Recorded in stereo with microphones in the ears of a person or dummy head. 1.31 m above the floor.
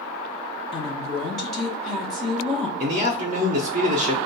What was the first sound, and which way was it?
A woman speaking, 5° left (ahead or behind).